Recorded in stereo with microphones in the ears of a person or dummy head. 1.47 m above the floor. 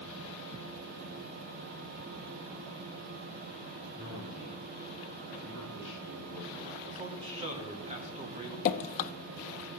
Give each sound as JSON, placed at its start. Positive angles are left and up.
{"t": 4.0, "sound": "a man speaking", "side_deg": -45, "distance_m": 5.0}
{"t": 6.9, "sound": "a man speaking", "side_deg": -40, "distance_m": 1.9}
{"t": 8.7, "sound": "dripping", "side_deg": 45, "distance_m": 0.7}